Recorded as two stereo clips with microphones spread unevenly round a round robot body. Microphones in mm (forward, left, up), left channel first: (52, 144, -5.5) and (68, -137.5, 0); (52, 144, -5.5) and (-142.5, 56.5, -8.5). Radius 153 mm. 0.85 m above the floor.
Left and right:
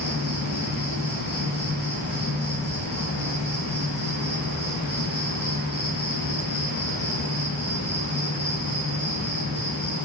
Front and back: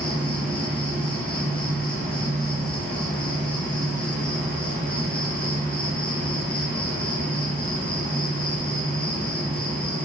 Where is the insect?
105° left, 0.8 m.